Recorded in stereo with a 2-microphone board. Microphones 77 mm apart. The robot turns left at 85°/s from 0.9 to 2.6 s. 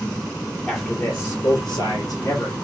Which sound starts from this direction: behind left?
A man speaking, at 0.7 s.